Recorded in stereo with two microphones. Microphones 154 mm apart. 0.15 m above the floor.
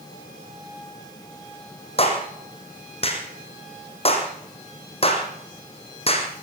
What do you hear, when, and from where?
2.0 s a clap: 40° left (ahead or behind), 5 m